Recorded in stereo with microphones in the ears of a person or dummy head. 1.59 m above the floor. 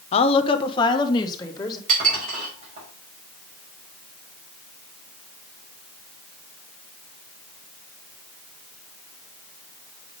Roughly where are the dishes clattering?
Right.